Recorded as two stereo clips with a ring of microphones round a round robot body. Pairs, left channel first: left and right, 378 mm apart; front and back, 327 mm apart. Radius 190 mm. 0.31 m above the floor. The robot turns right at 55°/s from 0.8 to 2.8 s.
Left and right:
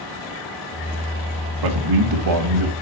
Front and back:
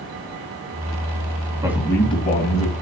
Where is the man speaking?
100° right, 1.9 m; by 2.7 s 40° right, 1.9 m.